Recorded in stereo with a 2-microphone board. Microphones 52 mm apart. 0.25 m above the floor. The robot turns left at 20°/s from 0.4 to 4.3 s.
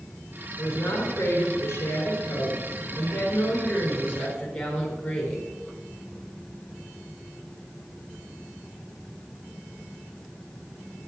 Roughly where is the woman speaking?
Left.